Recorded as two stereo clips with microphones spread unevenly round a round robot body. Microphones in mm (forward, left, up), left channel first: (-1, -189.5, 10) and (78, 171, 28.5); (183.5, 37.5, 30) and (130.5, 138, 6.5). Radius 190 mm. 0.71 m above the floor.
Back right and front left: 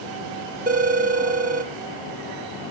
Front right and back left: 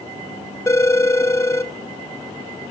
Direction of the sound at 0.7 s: 10° left.